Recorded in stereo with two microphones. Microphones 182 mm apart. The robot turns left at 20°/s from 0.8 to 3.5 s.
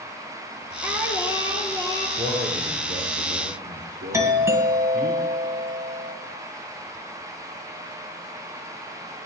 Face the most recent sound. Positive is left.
turn(degrees=-15)  # may be behind; listen again after turning